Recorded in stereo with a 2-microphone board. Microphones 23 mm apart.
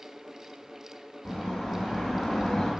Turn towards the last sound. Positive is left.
turn(degrees=45)  # may be behind; listen again after turning